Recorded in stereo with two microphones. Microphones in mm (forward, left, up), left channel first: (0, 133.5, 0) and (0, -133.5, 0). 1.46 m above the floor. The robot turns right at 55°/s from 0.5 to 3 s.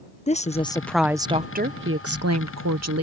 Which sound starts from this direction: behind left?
A woman speaking, at 0.3 s.